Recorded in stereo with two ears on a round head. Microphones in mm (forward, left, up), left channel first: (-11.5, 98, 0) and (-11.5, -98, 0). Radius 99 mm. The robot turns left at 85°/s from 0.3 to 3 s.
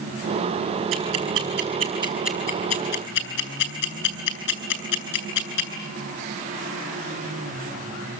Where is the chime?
I don't hear a chime.